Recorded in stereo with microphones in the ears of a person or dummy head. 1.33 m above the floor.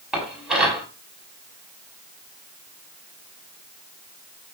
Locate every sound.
0.1 s dishes clattering: 5° right (ahead or behind), 7 m